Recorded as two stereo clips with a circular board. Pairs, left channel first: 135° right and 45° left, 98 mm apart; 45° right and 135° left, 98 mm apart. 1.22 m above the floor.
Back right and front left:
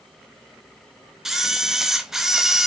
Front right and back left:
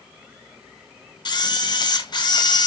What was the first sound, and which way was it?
A camera shutter, 40° right.